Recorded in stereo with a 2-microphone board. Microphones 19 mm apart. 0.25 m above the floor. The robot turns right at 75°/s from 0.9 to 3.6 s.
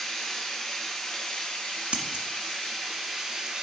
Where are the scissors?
60° right (ahead or behind), 1.0 m; by 2.2 s 45° right (ahead or behind), 1.0 m.